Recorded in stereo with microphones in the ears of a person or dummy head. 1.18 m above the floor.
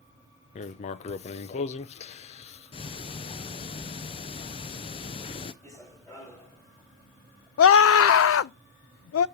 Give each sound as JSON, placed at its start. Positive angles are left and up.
{"t": 0.6, "sound": "writing", "side_deg": 40, "distance_m": 0.6}
{"t": 2.7, "sound": "ticking", "side_deg": 30, "distance_m": 0.6}
{"t": 5.6, "sound": "running footsteps", "side_deg": 15, "distance_m": 5.0}
{"t": 7.6, "sound": "a scream", "side_deg": 65, "distance_m": 0.5}